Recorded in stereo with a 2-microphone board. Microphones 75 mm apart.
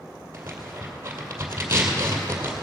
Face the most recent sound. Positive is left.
turn(degrees=-30)  # may be behind; listen again after turning